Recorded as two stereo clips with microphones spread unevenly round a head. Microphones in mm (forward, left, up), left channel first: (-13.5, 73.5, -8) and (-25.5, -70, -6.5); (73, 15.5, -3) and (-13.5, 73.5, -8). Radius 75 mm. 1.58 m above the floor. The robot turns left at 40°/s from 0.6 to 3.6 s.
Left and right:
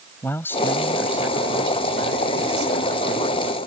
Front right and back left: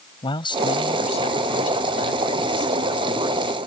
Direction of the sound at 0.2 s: 10° left.